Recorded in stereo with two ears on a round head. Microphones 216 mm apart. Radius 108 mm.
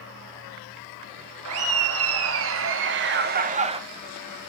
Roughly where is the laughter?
Right.